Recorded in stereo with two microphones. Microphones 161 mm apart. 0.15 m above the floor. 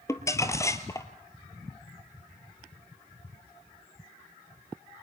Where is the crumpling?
20° left (ahead or behind), 1.5 m.